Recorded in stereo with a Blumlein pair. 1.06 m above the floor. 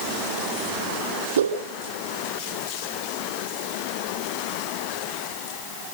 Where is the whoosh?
65° right, 6.5 m.